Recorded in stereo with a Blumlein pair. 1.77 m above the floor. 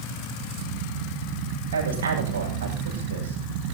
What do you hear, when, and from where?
1.7 s a woman speaking: 60° right, 8.5 m